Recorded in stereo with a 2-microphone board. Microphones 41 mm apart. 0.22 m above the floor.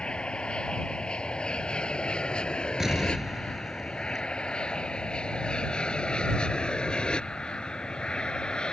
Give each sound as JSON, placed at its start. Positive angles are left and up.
{"t": 0.0, "sound": "an aircraft", "side_deg": 25}
{"t": 2.8, "sound": "an explosion", "side_deg": -10}